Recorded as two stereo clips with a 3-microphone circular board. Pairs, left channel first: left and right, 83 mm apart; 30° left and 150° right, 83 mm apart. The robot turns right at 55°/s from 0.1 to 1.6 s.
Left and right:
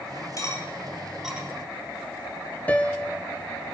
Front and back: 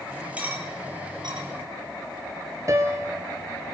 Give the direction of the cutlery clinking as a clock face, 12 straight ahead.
7 o'clock.